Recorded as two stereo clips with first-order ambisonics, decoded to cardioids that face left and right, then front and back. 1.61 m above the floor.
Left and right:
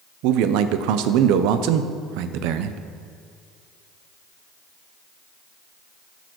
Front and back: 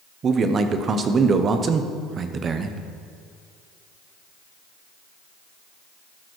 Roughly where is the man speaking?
Behind right.